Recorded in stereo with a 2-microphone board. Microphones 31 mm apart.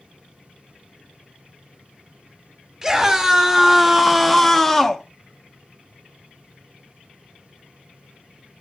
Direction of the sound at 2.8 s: 15° right (ahead or behind).